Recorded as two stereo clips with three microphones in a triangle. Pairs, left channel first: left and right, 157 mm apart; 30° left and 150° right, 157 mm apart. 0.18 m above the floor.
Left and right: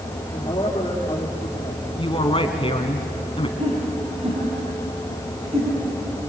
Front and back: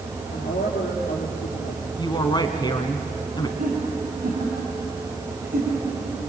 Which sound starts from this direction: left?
A woman speaking, at 2.0 s.